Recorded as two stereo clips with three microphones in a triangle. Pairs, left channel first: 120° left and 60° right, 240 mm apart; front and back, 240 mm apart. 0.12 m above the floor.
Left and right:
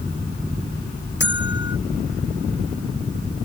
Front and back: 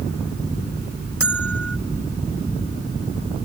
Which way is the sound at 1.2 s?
160° left.